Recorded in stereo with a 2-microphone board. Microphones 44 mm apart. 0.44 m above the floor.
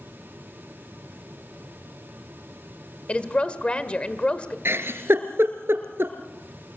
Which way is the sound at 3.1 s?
25° left (ahead or behind).